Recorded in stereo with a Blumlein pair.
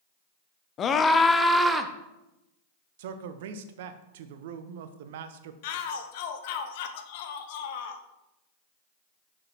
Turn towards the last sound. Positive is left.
turn(degrees=50)